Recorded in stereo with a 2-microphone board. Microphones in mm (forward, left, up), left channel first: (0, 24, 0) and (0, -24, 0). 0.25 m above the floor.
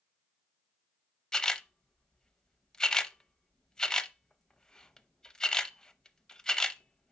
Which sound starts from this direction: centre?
A camera shutter, at 1.3 s.